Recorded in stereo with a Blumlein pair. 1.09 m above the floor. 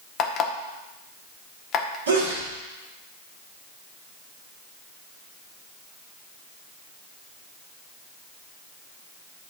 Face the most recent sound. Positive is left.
turn(degrees=-70)